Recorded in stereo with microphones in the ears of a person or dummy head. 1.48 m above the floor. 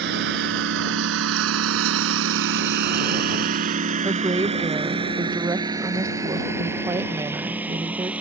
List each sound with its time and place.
0.0 s a lawn mower: 60° right (ahead or behind); by 8.2 s 5° right (ahead or behind)
4.0 s a woman speaking: 20° right (ahead or behind)